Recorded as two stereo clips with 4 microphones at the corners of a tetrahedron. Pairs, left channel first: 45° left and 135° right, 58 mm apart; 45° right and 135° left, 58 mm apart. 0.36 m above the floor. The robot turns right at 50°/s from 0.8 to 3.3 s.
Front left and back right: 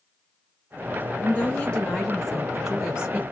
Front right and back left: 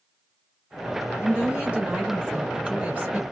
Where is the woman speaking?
75° left, 1.3 m; by 3.2 s 175° left, 1.3 m.